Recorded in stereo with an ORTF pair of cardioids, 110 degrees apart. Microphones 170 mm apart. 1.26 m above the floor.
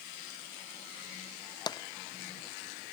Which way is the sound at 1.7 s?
25° left.